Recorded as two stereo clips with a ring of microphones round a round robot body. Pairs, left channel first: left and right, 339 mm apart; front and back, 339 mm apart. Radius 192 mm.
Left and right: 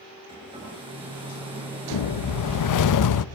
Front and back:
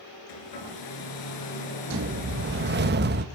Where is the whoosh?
120° left, 0.8 m.